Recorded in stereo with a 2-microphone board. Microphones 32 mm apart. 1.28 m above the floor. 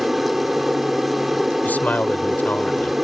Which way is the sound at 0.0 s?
10° right (ahead or behind).